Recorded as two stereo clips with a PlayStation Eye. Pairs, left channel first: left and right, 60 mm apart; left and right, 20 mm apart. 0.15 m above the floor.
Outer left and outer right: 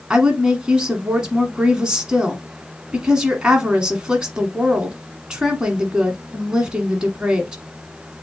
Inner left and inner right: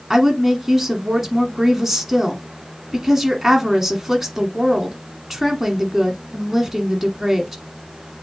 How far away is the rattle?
No rattle in this recording.